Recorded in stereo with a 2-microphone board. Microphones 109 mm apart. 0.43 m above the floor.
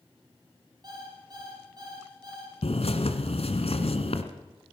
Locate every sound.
0.8 s an alarm clock: 40° right (ahead or behind), 6 m
2.6 s a bird: 75° left (ahead or behind), 1.7 m